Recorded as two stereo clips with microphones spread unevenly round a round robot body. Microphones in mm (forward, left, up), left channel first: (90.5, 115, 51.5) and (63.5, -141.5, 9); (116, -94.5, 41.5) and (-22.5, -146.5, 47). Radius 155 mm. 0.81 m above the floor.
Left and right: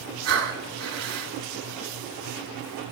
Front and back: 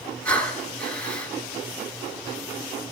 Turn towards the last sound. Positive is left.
turn(degrees=-65)